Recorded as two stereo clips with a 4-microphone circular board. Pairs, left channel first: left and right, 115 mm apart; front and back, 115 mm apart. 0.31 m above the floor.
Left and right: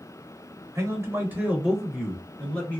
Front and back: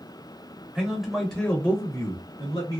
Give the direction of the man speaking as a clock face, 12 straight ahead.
4 o'clock.